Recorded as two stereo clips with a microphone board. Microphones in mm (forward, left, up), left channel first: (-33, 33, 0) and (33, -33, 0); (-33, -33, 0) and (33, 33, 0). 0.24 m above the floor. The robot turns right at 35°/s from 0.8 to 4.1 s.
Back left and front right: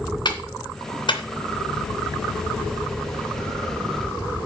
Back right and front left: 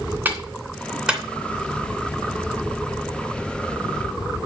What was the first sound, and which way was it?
A clap, 115° left.